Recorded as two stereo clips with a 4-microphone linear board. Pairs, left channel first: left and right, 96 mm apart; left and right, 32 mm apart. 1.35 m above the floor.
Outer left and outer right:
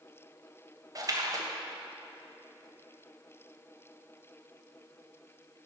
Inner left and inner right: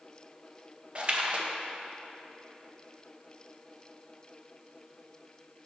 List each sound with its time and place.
0.9 s a splash: 40° right (ahead or behind), 0.7 m